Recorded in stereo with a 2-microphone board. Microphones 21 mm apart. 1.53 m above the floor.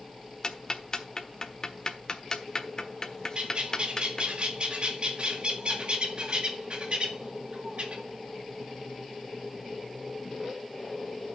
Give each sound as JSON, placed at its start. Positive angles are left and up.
{"t": 0.4, "sound": "ticking", "side_deg": 35, "distance_m": 1.3}
{"t": 3.4, "sound": "a bird", "side_deg": -50, "distance_m": 2.0}